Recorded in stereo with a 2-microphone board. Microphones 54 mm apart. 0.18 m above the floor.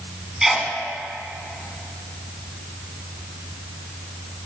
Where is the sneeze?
10° right (ahead or behind), 1.6 m.